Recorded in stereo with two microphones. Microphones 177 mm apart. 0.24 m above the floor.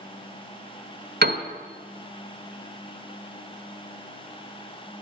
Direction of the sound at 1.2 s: 70° right (ahead or behind).